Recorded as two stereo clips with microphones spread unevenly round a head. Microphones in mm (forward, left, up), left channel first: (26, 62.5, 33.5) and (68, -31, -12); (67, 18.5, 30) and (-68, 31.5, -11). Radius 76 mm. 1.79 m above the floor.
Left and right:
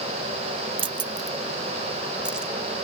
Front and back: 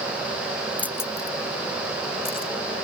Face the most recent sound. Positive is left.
turn(degrees=30)